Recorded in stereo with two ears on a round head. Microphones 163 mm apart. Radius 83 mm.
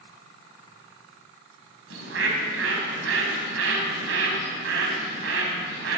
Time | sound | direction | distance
1.9 | a bird | 75° right (ahead or behind) | 2.5 m